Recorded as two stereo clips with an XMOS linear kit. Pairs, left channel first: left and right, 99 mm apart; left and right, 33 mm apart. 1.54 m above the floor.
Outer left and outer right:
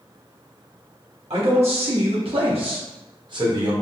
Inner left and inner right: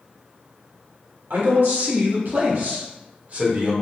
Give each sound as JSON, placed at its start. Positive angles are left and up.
{"t": 1.3, "sound": "a man speaking", "side_deg": -85, "distance_m": 1.7}